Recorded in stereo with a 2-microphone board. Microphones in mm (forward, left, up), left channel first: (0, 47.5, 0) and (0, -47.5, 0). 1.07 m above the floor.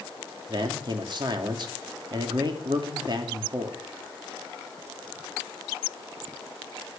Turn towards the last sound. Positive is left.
turn(degrees=-50)  # may be behind; listen again after turning